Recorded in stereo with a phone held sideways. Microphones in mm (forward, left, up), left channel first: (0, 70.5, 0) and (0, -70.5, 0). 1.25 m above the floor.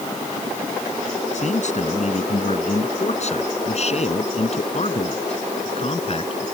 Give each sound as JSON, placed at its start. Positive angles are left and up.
{"t": 1.3, "sound": "a man speaking", "side_deg": 55}